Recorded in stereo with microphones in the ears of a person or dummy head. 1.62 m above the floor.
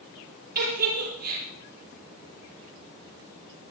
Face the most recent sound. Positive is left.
turn(degrees=-55)  # may be behind; listen again after turning